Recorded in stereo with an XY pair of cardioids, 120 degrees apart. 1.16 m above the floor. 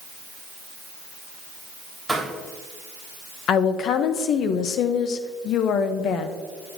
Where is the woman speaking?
65° left, 0.8 m.